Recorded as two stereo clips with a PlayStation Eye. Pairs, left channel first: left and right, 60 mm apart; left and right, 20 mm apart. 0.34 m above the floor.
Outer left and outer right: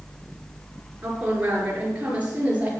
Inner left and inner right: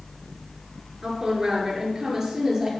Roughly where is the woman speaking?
Right.